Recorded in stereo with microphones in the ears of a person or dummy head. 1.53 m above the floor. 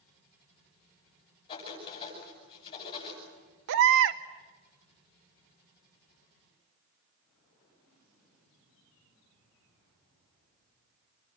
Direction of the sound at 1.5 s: 35° left (ahead or behind).